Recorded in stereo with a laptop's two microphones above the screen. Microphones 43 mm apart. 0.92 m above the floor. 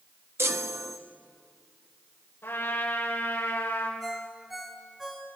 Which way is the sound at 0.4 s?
70° right (ahead or behind).